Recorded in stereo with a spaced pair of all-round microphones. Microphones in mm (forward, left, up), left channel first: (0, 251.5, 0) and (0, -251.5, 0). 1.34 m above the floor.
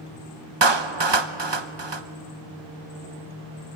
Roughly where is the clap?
Right.